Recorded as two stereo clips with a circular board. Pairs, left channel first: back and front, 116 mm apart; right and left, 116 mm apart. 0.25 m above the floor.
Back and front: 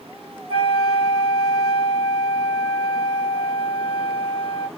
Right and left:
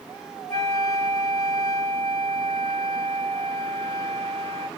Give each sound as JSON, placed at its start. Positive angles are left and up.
{"t": 0.5, "sound": "a flute", "azimuth_deg": -10, "distance_m": 1.9}